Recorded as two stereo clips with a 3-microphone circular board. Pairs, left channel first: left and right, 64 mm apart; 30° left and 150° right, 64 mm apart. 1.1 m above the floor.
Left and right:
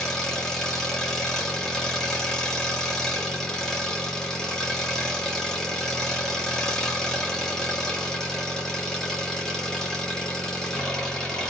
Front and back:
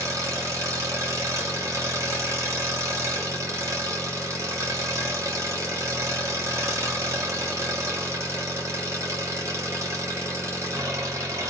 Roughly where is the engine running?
Behind.